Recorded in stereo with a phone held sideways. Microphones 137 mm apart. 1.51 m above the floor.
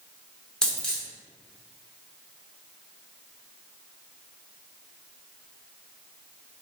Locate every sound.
0.6 s a dropped coin: 5° left (ahead or behind), 0.9 m